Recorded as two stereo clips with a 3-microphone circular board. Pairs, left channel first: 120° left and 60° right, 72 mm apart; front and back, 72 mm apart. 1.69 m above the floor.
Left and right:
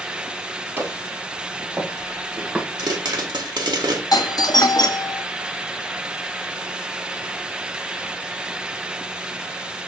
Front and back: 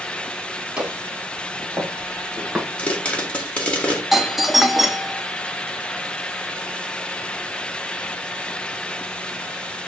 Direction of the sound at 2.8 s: 75° right.